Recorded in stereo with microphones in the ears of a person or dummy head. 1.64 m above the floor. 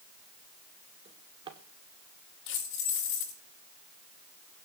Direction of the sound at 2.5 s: 75° left (ahead or behind).